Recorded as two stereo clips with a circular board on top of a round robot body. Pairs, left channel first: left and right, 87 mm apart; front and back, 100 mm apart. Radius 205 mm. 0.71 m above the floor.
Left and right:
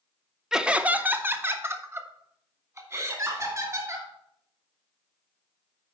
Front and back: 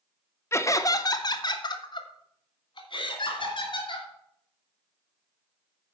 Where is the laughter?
15° right, 1.0 m; by 4.1 s 40° right, 3 m.